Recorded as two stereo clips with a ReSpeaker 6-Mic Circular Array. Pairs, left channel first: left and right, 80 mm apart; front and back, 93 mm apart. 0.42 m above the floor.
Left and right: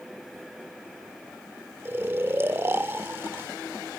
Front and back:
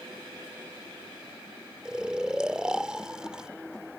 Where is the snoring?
110° right.